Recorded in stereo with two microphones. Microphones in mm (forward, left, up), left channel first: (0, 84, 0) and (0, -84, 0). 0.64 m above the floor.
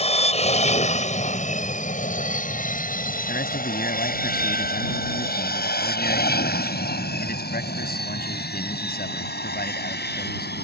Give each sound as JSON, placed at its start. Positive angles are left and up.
{"t": 0.0, "sound": "an aircraft", "side_deg": 40}
{"t": 3.3, "sound": "a man speaking", "side_deg": 70}